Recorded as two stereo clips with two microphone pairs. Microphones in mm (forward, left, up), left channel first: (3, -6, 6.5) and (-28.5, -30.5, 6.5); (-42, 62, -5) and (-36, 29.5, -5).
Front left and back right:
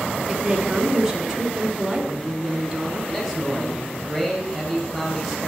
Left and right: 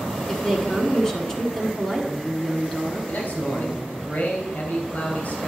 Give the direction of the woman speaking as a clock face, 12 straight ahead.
7 o'clock.